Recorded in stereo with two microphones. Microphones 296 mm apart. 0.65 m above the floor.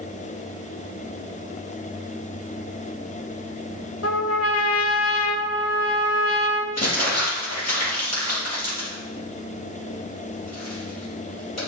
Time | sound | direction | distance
4.0 | a trumpet | 55° left (ahead or behind) | 1.3 m
6.8 | crumpling | 60° left (ahead or behind) | 4 m